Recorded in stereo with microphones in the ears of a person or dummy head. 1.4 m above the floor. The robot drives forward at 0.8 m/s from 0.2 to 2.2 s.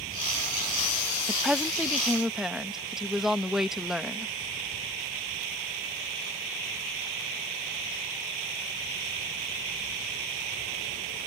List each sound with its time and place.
1.3 s a woman speaking: 5° right (ahead or behind); by 4.3 s centre (ahead or behind)